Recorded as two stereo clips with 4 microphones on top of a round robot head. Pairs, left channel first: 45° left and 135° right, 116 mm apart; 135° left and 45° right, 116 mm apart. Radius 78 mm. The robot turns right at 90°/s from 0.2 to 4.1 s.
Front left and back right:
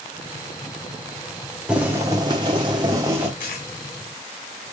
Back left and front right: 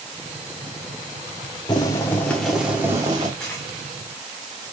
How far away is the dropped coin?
About 2 m.